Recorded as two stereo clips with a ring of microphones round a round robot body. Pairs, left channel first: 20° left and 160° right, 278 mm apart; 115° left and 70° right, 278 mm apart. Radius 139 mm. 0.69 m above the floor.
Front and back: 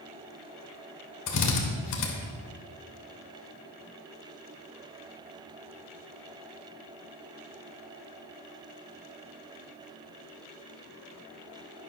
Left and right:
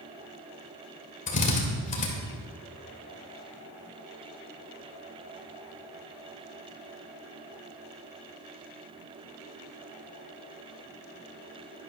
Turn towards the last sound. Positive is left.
turn(degrees=50)